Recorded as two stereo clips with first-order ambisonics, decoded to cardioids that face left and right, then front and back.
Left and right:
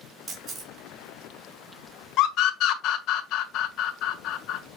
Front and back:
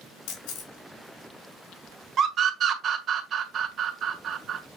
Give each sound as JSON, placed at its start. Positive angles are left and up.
{"t": 0.3, "sound": "a camera shutter", "azimuth_deg": -25, "distance_m": 4.0}
{"t": 2.2, "sound": "a scream", "azimuth_deg": 125, "distance_m": 1.5}